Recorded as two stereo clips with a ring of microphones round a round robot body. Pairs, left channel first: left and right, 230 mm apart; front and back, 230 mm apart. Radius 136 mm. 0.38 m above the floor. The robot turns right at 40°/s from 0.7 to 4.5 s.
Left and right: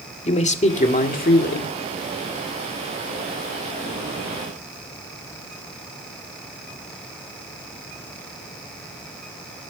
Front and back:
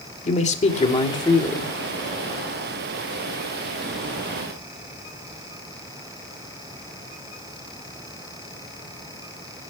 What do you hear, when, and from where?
0.2 s a man speaking: 45° left, 1.8 m; by 1.7 s 85° left, 1.8 m